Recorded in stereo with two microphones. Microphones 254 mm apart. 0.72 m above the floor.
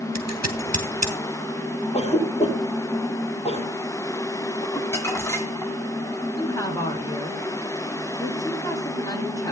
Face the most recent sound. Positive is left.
turn(degrees=15)  # may be behind; listen again after turning